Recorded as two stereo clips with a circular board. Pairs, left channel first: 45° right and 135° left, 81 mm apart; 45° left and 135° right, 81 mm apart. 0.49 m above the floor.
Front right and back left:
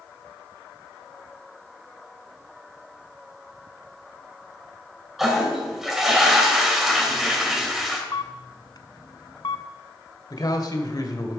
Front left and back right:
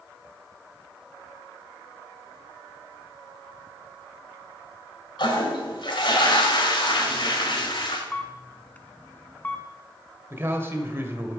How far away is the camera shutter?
About 0.6 m.